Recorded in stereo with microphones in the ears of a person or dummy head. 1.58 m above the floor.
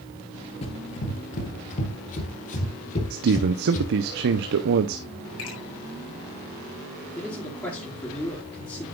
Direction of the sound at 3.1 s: 60° right (ahead or behind).